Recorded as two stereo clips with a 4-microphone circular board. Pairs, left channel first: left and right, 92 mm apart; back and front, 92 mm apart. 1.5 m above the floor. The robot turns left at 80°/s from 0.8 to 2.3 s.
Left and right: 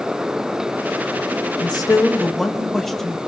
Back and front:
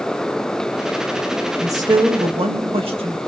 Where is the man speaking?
60° left, 2.5 m; by 3.2 s 5° left, 2.5 m.